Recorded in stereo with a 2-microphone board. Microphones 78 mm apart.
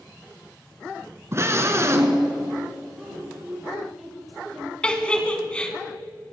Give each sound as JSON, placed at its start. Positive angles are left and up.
{"t": 1.3, "sound": "a scream", "side_deg": -35, "distance_m": 1.7}
{"t": 3.0, "sound": "a woman speaking", "side_deg": 0, "distance_m": 4.0}
{"t": 4.8, "sound": "a giggle", "side_deg": 15, "distance_m": 1.3}